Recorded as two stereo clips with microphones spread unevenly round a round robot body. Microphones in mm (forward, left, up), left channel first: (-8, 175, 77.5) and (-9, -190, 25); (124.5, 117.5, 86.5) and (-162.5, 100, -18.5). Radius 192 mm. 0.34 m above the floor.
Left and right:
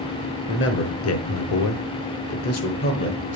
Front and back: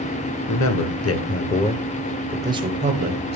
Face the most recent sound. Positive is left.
turn(degrees=150)